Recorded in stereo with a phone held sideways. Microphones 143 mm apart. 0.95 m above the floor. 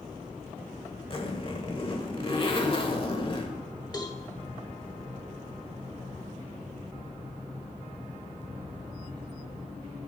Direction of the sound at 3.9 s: 30° left (ahead or behind).